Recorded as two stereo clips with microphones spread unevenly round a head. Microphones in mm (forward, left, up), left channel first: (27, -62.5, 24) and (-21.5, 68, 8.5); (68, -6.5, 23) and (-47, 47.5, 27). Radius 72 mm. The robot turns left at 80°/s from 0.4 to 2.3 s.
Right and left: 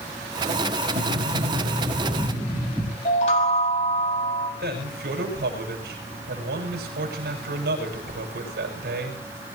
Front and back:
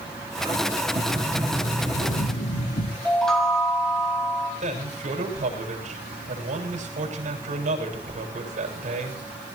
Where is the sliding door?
120° left, 7.5 m; by 3.0 s 10° left, 7.5 m.